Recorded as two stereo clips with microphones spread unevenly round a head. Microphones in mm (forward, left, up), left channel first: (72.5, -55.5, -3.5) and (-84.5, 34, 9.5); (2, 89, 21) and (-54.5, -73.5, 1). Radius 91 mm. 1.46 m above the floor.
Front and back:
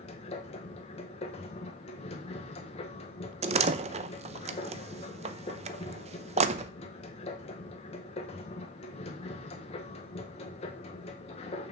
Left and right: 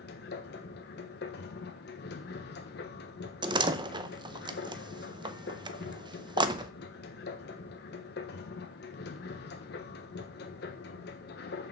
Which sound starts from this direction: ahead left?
A machine running, at 0.0 s.